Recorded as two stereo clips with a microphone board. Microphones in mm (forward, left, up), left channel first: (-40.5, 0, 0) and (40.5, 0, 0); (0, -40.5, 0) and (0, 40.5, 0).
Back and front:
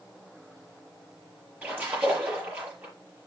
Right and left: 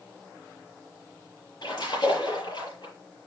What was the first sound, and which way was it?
A splash, 70° right.